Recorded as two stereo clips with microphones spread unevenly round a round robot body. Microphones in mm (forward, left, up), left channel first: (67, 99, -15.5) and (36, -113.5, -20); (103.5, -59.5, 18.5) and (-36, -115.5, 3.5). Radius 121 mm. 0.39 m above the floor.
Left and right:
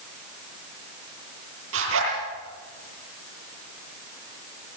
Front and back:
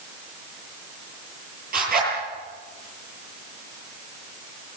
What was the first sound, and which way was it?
A zipper, 140° right.